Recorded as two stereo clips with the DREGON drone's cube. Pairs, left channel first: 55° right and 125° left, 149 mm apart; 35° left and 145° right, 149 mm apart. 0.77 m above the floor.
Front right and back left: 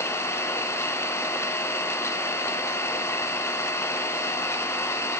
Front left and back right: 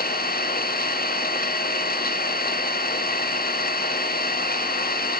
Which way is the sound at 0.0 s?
15° left.